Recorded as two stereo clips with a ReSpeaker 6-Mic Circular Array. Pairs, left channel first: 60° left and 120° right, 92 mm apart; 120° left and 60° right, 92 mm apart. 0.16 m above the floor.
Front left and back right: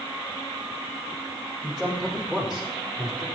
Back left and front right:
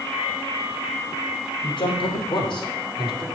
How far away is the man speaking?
About 5.5 m.